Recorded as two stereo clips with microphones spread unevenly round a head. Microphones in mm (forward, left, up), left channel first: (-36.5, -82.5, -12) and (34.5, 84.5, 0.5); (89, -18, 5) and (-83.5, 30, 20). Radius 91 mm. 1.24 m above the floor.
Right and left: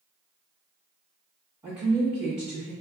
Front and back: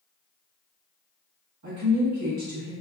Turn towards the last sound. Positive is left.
turn(degrees=140)